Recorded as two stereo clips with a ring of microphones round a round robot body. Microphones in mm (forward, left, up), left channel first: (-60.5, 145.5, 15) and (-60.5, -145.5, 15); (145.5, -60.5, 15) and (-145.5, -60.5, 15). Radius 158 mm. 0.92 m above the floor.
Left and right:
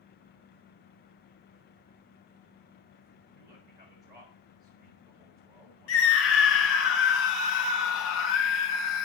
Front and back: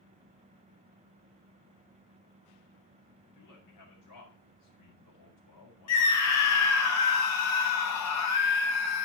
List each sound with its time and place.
3.3 s a man speaking: 10° right, 8 m
5.9 s a scream: 40° left, 2.5 m